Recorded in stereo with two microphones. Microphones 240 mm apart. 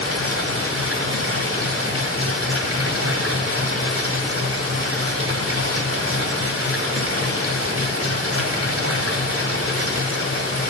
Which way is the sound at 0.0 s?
65° right (ahead or behind).